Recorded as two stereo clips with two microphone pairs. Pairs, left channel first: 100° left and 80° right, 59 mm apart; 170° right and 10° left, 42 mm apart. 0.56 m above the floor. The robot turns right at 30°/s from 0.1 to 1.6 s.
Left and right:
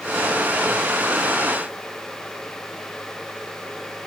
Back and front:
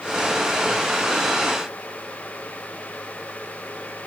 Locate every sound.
Only background noise.